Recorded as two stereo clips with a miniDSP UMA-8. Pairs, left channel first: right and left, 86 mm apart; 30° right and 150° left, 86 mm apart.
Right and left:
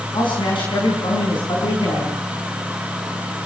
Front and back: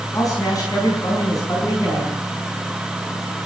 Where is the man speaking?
75° right, 5 m.